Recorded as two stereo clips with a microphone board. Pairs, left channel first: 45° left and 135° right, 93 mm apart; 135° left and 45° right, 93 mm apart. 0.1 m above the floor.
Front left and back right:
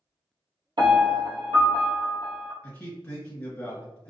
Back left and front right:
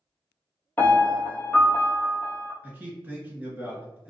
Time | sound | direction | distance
0.8 | a piano | 160° right | 0.8 m
2.6 | a man speaking | straight ahead | 1.4 m